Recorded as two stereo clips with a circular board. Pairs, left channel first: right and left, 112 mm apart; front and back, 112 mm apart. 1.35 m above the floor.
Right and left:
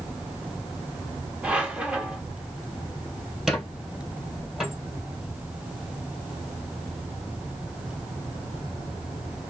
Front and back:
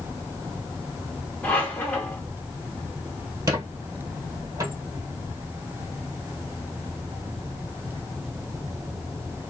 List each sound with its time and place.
1.4 s a squeak: 35° left, 1.0 m
3.5 s a squeak: straight behind, 1.4 m